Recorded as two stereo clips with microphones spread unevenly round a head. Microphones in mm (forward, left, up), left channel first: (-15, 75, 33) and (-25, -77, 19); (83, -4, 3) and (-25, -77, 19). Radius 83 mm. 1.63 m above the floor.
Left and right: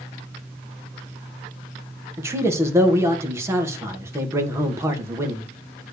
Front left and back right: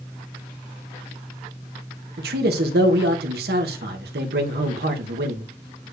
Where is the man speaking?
170° right, 1.7 m.